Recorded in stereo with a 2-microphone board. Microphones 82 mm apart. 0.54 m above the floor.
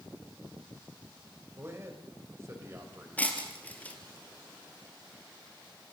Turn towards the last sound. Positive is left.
turn(degrees=20)  # may be behind; listen again after turning